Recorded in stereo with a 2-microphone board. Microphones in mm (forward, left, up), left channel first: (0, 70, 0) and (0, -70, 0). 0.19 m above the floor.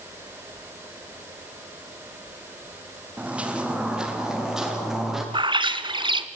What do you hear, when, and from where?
3.2 s footsteps: 10° right (ahead or behind), 3 m; by 5.2 s centre (ahead or behind), 6.5 m
5.3 s a bird: 35° right (ahead or behind), 1.1 m